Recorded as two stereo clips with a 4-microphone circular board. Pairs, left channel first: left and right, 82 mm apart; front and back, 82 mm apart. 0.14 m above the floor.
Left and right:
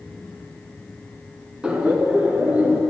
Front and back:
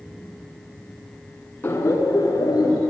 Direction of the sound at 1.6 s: 20° right.